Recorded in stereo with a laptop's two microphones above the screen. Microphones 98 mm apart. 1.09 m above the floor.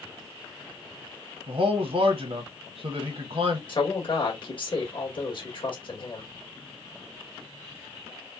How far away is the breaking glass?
I don't hear breaking glass.